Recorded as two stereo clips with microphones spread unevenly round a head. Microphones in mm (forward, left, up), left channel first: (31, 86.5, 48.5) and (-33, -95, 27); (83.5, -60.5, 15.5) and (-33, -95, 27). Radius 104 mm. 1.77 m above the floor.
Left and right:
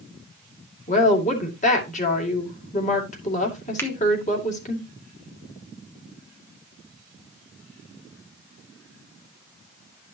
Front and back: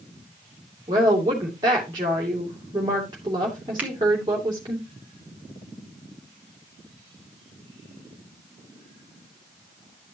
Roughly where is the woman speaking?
Behind left.